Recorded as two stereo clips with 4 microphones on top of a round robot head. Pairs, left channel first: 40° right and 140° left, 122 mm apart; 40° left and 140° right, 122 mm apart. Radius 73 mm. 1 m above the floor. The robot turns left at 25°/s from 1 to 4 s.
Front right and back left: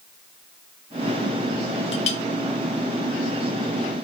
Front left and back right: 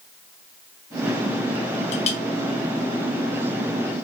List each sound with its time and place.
1.9 s a clink: 5° left, 0.9 m; by 2.2 s 5° right, 0.9 m